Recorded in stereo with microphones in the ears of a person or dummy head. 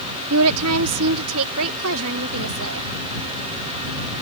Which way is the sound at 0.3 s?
80° right.